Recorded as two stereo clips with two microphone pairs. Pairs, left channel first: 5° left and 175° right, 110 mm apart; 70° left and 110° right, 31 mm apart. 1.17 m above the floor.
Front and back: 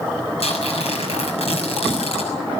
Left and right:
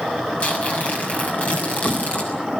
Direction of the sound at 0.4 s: 30° left.